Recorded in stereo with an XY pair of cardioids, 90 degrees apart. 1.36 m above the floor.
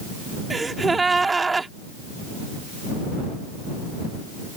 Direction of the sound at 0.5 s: 30° right.